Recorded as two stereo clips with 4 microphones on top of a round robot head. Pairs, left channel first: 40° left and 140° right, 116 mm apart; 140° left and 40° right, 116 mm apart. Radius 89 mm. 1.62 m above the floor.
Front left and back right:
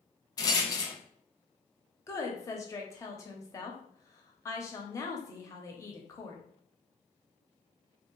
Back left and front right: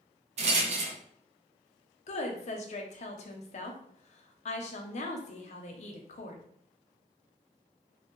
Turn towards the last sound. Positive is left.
turn(degrees=105)